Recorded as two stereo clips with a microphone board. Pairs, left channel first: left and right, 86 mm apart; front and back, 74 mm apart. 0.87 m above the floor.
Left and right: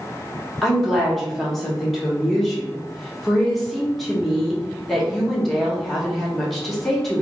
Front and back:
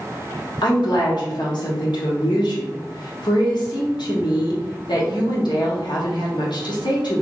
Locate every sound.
0.6 s a woman speaking: straight ahead, 1.1 m